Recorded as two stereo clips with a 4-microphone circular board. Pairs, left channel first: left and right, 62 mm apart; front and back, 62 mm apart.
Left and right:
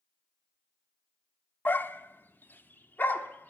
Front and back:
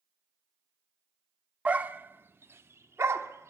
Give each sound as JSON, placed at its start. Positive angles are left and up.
{"t": 1.6, "sound": "a dog barking", "azimuth_deg": 125, "distance_m": 0.6}